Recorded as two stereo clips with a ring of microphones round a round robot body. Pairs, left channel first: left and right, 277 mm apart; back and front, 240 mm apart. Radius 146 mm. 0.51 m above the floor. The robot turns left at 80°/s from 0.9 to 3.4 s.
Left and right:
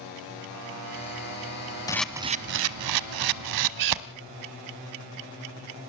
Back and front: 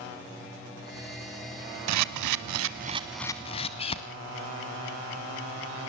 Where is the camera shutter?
15° left, 0.9 m; by 4.0 s 110° right, 0.9 m.